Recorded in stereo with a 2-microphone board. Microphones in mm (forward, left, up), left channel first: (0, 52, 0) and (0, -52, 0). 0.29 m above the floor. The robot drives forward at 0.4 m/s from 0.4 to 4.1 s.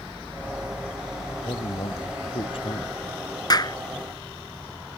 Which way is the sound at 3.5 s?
40° left (ahead or behind).